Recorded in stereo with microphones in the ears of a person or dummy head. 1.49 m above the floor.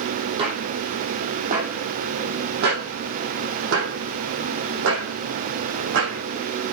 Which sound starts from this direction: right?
Footsteps, at 0.4 s.